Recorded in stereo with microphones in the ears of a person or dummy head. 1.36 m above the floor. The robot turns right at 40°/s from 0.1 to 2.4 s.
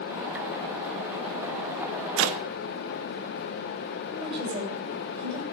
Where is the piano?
I don't hear a piano.